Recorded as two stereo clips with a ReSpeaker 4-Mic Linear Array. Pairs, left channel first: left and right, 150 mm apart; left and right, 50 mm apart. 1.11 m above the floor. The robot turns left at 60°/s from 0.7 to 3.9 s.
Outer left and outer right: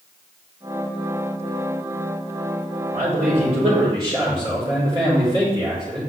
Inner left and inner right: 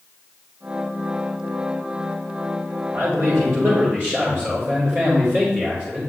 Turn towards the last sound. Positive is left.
turn(degrees=-140)